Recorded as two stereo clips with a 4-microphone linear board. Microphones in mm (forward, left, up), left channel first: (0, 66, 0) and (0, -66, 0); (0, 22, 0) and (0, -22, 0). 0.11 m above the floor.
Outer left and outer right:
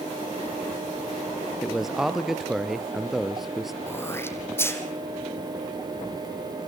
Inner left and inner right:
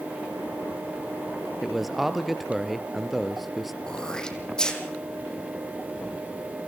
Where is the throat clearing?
20° left (ahead or behind), 3 m.